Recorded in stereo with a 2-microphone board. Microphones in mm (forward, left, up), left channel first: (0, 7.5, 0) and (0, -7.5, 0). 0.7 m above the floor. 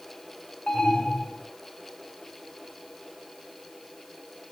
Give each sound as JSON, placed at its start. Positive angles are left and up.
{"t": 0.7, "sound": "an alarm", "side_deg": 80, "distance_m": 4.5}